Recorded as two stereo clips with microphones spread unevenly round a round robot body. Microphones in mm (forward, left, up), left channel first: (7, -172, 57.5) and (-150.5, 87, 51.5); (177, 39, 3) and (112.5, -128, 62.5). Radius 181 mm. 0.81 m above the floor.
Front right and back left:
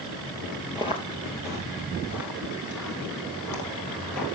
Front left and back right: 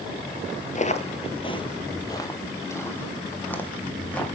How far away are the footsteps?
About 1.1 m.